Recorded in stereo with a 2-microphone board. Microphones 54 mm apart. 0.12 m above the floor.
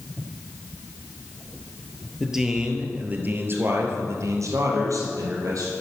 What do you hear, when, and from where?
2.2 s a man speaking: 5° right (ahead or behind), 2.5 m; by 5.7 s 70° right (ahead or behind), 3.5 m